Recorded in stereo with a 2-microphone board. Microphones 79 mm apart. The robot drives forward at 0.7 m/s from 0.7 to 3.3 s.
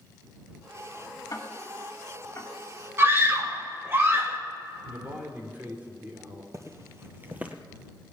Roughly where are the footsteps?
Right.